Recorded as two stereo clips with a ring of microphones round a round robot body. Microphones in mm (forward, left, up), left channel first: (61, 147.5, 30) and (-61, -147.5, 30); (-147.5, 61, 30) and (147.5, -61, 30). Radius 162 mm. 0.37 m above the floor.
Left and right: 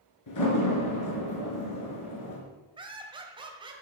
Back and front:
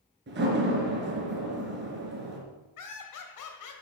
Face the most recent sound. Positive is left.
turn(degrees=175)